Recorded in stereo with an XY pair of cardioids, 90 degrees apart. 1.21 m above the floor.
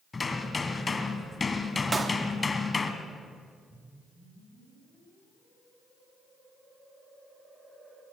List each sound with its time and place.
0.1 s hammering: 30° left, 3 m
1.9 s a clap: 30° right, 2.5 m
3.7 s a whoosh: 25° right, 8.5 m